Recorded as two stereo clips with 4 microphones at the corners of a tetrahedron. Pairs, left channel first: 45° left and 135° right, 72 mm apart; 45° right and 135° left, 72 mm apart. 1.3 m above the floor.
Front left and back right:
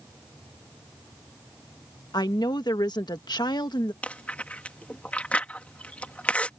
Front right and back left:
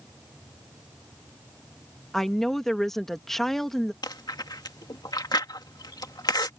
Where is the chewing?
25° right.